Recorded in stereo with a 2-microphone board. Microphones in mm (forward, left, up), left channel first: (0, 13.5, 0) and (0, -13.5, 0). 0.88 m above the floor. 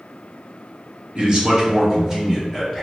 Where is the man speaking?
35° right (ahead or behind), 1.0 m; by 2.8 s 5° right (ahead or behind), 0.9 m.